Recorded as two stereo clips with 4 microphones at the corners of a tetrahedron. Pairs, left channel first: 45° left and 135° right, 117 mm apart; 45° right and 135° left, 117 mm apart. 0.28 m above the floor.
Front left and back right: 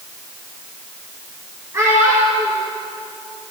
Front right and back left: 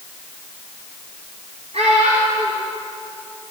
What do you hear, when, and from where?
1.7 s a child speaking: 160° left, 2.5 m